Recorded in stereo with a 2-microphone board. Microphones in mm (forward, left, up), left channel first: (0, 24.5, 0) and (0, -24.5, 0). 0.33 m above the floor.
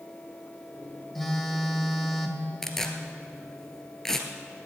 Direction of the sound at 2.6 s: 10° left (ahead or behind).